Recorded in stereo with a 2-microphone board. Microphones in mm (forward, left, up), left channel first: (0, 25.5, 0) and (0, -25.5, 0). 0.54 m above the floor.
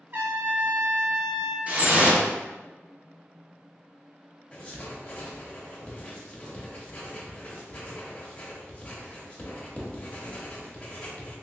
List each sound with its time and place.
0.1 s a trumpet: 45° right (ahead or behind), 0.9 m
1.7 s dripping: 30° right (ahead or behind), 0.7 m
4.5 s writing: 20° left (ahead or behind), 0.9 m